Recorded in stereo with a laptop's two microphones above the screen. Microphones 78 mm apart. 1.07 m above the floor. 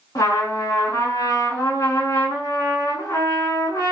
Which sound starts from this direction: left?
A trumpet, at 0.1 s.